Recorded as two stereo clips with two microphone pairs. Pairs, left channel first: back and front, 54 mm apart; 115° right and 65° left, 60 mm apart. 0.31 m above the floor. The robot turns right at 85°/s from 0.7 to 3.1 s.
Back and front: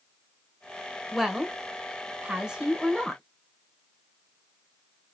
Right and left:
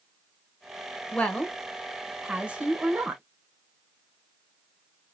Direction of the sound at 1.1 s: 85° right.